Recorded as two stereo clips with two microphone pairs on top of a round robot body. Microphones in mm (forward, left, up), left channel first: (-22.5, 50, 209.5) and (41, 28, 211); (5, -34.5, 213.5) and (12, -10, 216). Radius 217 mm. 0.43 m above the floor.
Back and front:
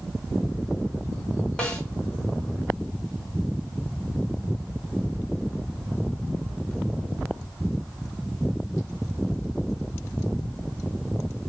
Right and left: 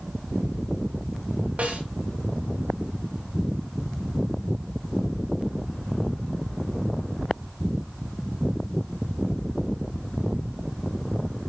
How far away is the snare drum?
About 5 m.